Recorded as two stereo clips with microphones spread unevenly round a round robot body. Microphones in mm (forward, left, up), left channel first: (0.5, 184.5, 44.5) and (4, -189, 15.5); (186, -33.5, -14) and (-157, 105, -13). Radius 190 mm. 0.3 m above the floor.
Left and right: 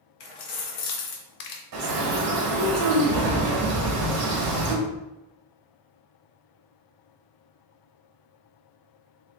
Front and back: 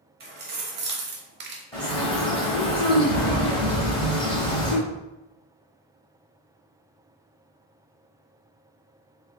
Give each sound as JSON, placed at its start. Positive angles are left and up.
{"t": 0.2, "sound": "keys jangling", "azimuth_deg": 95, "distance_m": 1.3}
{"t": 1.7, "sound": "a bird", "azimuth_deg": -95, "distance_m": 1.0}